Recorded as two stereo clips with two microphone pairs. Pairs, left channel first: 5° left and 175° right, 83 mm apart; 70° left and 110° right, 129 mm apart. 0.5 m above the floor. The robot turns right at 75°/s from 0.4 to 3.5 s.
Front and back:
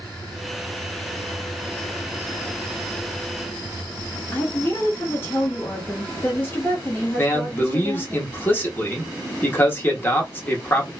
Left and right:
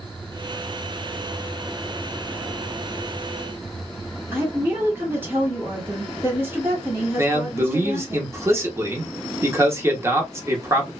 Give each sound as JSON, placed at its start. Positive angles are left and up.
{"t": 4.3, "sound": "a woman speaking", "azimuth_deg": -50, "distance_m": 1.5}
{"t": 7.2, "sound": "a man speaking", "azimuth_deg": -55, "distance_m": 0.9}